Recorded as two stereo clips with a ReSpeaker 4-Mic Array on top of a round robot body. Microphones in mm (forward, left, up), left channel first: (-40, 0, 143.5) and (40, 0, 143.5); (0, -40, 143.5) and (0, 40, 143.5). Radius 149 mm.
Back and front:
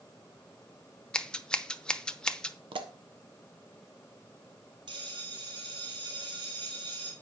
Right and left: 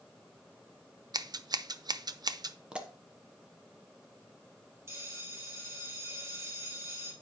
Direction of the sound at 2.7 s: 10° left.